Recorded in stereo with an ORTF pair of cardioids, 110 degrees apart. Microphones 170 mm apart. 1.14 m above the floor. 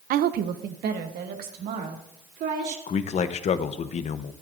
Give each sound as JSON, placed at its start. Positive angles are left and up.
{"t": 0.1, "sound": "a woman speaking", "azimuth_deg": -60, "distance_m": 0.5}
{"t": 2.9, "sound": "a man speaking", "azimuth_deg": 45, "distance_m": 0.8}